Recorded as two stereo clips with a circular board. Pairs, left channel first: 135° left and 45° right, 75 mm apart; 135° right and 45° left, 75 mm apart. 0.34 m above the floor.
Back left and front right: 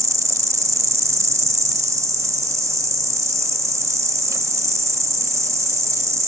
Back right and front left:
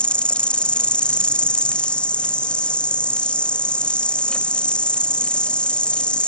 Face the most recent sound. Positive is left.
turn(degrees=-65)